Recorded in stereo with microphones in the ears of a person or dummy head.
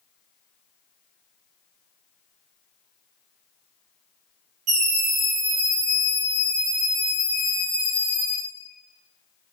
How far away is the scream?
About 1.3 m.